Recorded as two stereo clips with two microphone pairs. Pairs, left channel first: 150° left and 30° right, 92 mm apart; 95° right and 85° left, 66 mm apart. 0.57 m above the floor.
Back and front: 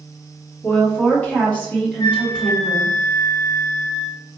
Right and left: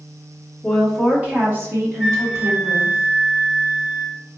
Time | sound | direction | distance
0.6 | a woman speaking | 175° left | 1.1 m
2.0 | a flute | 155° left | 0.8 m